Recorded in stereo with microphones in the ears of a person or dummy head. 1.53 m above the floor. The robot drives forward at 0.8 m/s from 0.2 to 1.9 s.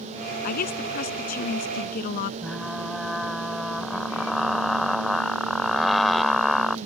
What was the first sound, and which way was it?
A woman speaking, 55° left (ahead or behind).